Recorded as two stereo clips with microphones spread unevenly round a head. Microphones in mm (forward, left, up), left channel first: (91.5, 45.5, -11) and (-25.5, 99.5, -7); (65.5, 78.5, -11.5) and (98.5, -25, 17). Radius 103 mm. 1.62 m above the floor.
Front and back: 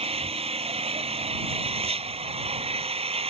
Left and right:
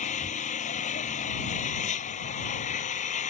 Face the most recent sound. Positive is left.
turn(degrees=115)